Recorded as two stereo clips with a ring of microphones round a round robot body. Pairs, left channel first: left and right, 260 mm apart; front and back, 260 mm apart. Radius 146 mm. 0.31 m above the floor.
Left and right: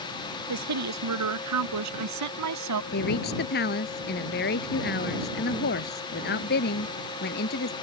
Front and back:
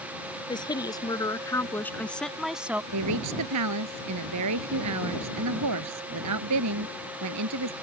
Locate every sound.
0.5 s a woman speaking: 75° right; by 2.8 s 95° right
2.9 s a woman speaking: 150° left